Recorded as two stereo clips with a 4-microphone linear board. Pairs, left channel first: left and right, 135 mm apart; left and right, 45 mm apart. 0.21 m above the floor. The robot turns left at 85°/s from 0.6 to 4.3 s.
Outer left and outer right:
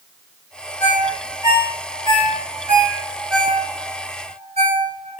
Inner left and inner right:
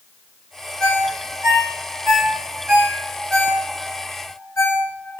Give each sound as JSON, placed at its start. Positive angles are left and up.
{"t": 0.8, "sound": "a ringtone", "side_deg": 25, "distance_m": 1.6}